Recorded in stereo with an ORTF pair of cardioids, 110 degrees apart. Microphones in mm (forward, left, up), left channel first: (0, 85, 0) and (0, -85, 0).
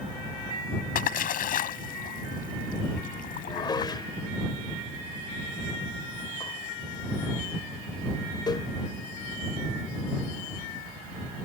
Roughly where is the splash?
Ahead left.